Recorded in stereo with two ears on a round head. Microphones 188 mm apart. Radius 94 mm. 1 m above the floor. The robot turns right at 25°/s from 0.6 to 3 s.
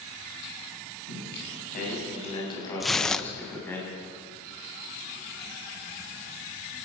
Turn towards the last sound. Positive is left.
turn(degrees=5)  # may be behind; listen again after turning